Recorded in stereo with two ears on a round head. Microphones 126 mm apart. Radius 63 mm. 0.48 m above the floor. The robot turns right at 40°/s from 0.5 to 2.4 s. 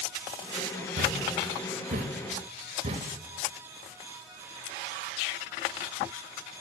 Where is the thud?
70° right (ahead or behind), 1.0 m; by 3.1 s 40° right (ahead or behind), 1.0 m.